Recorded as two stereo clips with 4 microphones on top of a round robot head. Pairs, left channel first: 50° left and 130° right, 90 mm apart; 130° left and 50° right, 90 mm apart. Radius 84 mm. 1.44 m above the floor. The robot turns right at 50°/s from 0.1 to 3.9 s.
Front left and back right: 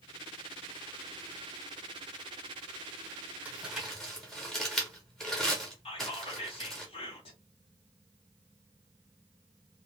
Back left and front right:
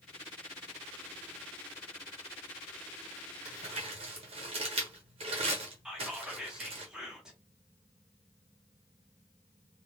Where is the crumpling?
55° right, 0.9 m; by 6.8 s 35° right, 0.9 m.